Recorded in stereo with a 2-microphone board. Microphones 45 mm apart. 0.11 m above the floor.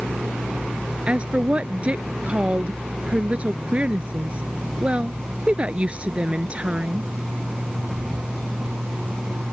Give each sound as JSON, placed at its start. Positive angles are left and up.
{"t": 1.1, "sound": "a woman speaking", "side_deg": -30}